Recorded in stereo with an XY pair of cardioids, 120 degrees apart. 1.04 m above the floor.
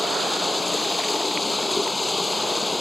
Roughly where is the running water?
Ahead.